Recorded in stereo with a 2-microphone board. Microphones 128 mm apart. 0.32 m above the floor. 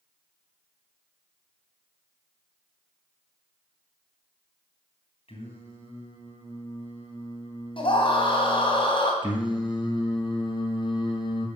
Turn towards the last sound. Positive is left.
turn(degrees=40)  # may be behind; listen again after turning